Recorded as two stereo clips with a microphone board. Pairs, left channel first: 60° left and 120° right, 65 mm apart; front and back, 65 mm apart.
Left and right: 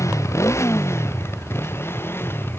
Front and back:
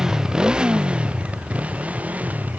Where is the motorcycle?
100° left; by 2.6 s 115° left.